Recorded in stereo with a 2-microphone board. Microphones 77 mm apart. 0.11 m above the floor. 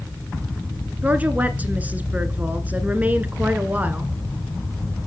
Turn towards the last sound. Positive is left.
turn(degrees=-20)  # may be behind; listen again after turning